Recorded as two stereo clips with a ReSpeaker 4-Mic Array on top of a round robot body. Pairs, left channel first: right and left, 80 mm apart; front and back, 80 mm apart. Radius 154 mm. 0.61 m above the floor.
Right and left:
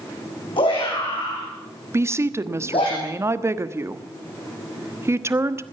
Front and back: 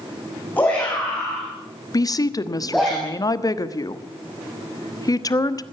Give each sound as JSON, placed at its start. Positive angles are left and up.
{"t": 0.6, "sound": "a shout", "azimuth_deg": -70, "distance_m": 7.0}
{"t": 1.9, "sound": "a woman speaking", "azimuth_deg": 35, "distance_m": 1.4}